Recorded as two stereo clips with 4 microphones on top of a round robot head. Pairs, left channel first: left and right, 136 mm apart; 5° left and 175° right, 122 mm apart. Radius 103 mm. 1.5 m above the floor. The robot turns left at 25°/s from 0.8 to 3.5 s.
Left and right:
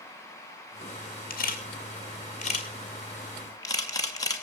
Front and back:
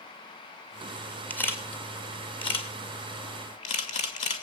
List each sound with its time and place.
1.3 s a camera shutter: 80° left, 3 m; by 4.4 s 25° left, 3 m